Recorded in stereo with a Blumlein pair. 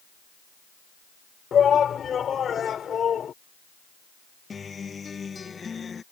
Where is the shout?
20° left.